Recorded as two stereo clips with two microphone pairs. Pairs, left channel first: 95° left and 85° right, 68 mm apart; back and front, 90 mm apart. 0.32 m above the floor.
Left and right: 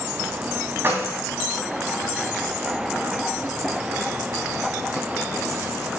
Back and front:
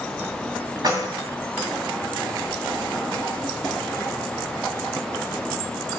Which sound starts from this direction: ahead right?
Keys jangling, at 0.8 s.